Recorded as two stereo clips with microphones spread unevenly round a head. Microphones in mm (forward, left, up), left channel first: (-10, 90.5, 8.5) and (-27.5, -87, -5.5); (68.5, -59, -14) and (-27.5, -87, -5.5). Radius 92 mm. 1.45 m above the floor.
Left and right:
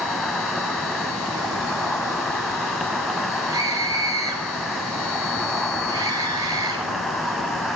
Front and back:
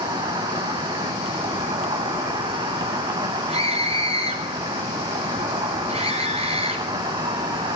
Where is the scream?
165° right, 8 m.